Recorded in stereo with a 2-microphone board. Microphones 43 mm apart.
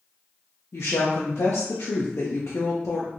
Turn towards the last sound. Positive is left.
turn(degrees=80)